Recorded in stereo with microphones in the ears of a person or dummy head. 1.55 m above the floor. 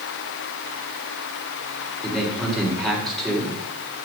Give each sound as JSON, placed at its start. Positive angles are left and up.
{"t": 2.0, "sound": "a man speaking", "side_deg": 5, "distance_m": 5.0}